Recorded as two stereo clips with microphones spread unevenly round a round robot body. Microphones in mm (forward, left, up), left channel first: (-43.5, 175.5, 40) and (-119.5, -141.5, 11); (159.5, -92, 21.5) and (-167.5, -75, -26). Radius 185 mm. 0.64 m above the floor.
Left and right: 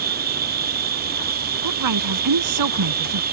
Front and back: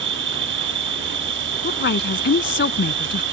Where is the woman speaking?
60° right.